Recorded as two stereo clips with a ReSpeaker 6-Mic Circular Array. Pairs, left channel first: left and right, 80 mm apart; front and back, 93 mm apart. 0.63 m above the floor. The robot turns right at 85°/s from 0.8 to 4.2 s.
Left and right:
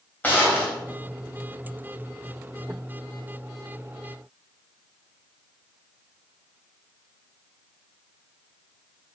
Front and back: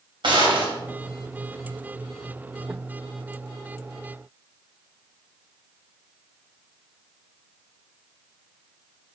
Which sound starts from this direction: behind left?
A gunshot, at 0.2 s.